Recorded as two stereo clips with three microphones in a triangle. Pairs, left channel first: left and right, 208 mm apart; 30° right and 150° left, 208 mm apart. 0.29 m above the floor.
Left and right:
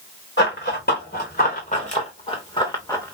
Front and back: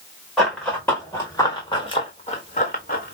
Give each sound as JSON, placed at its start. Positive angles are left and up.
{"t": 0.4, "sound": "running footsteps", "azimuth_deg": 60, "distance_m": 2.5}